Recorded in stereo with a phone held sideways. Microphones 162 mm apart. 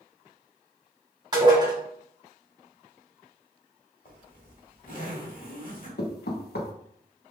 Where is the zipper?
60° left (ahead or behind), 1.3 m.